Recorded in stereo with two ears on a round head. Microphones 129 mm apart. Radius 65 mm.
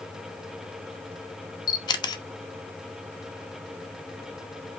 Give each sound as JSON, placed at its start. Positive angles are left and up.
{"t": 1.7, "sound": "a camera shutter", "side_deg": 30, "distance_m": 0.9}